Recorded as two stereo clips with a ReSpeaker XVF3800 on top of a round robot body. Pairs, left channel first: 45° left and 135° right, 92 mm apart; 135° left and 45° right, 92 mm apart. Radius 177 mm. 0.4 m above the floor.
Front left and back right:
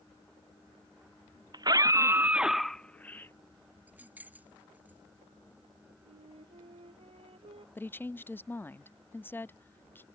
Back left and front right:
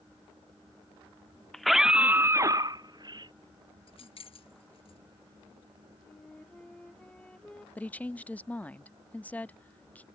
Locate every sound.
1.5 s a scream: 140° right; by 3.3 s 20° right
3.9 s keys jangling: 150° left
6.0 s a flute: 145° right
7.8 s a woman speaking: 80° left